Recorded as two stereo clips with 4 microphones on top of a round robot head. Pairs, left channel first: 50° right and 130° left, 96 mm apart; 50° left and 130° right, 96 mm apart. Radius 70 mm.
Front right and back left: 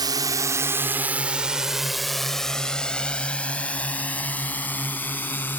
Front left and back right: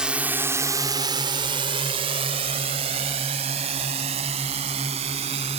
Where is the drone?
150° left; by 5.6 s 120° right.